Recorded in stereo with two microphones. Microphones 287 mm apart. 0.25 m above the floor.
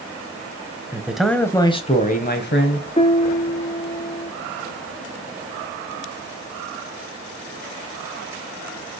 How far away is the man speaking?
About 1.1 m.